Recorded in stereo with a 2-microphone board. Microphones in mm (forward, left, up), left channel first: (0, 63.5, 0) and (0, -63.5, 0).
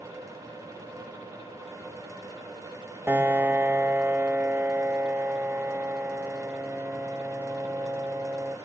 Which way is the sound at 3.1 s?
15° right (ahead or behind).